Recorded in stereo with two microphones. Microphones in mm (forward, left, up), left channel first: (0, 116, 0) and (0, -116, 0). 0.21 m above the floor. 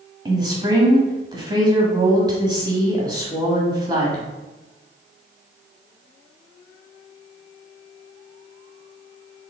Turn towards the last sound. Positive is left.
turn(degrees=-20)  # may be behind; listen again after turning